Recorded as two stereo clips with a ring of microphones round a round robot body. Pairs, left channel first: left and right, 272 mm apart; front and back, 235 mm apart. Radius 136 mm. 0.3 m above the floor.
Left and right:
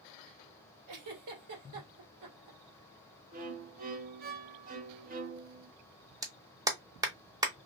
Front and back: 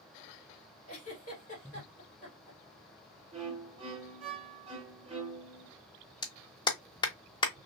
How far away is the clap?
About 0.7 m.